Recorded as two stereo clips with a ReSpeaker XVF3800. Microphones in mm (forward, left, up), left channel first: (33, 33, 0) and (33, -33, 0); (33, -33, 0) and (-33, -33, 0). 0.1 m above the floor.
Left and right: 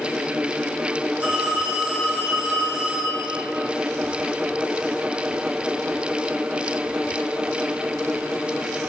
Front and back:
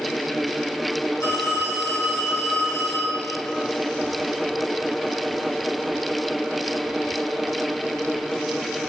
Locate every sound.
1.2 s a phone ringing: 25° right, 3 m